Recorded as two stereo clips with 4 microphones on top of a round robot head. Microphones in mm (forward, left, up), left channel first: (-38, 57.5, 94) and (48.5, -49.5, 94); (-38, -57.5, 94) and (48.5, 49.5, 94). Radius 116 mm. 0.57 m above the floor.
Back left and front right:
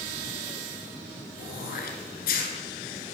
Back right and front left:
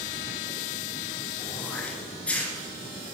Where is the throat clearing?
150° left, 1.9 m.